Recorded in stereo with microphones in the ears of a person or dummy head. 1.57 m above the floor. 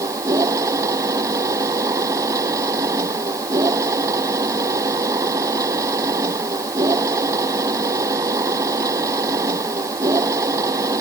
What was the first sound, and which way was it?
A machine running, 20° right (ahead or behind).